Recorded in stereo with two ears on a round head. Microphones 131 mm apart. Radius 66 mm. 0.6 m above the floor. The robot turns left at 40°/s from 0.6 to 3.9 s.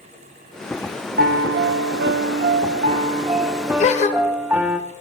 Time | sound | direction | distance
1.2 | a piano | 60° right | 0.5 m
3.8 | a gasp | 45° left (ahead or behind) | 1.0 m